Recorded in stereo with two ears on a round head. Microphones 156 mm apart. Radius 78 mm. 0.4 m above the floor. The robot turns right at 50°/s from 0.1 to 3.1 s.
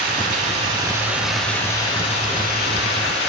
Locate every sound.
0.0 s running water: 60° right, 3 m; by 3.3 s 90° left, 3 m